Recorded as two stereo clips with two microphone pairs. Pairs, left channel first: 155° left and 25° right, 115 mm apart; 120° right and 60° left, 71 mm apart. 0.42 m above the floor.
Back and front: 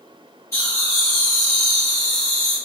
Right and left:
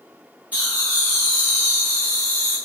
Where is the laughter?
110° left, 1.1 m; by 2.6 s 95° left, 2.0 m.